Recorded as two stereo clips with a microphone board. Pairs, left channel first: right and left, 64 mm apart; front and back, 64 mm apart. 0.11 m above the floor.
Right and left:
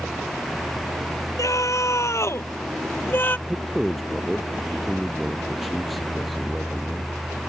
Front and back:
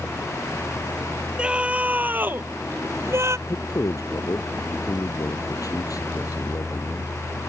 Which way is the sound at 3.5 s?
Straight ahead.